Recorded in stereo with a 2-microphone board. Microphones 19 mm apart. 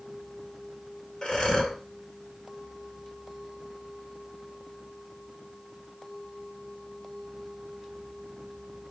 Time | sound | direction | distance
1.2 | breathing | 45° left (ahead or behind) | 2 m